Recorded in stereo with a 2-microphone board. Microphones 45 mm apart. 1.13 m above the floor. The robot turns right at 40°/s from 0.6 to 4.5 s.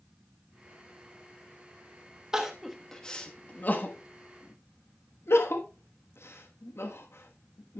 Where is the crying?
10° right (ahead or behind), 1.2 m; by 7.8 s 75° left (ahead or behind), 1.2 m.